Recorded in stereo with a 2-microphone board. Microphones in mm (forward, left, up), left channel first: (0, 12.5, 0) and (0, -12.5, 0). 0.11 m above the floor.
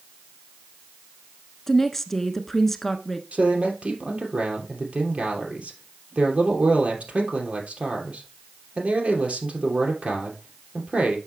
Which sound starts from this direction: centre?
A woman speaking, at 1.7 s.